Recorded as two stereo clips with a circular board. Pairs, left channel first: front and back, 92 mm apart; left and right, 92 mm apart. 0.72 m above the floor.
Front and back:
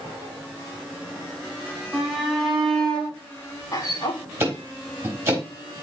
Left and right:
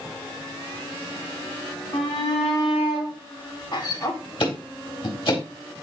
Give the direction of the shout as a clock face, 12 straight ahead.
9 o'clock.